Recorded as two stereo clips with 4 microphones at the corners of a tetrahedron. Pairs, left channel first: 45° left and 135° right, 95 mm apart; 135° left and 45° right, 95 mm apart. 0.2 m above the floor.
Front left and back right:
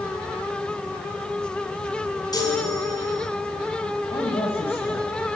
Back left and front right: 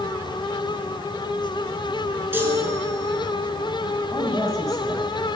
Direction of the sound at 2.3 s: 15° left.